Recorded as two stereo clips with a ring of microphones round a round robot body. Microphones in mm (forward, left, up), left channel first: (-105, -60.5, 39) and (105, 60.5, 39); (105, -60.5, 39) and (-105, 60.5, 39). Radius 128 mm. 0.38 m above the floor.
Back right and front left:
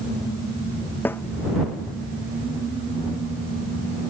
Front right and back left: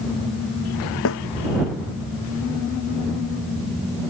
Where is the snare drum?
70° right.